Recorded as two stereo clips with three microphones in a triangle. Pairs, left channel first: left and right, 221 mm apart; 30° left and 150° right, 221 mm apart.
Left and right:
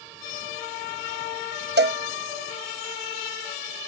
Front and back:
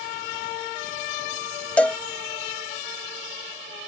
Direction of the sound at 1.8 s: 55° right.